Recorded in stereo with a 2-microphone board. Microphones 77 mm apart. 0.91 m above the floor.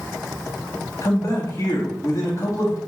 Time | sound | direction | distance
1.0 | a man speaking | 40° left (ahead or behind) | 1.1 m